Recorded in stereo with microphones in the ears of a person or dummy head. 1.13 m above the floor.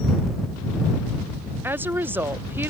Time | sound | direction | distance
1.6 | a woman speaking | 15° right (ahead or behind) | ?